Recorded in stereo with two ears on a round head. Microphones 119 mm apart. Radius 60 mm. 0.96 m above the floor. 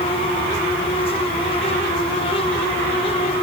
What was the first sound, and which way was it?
Only background noise.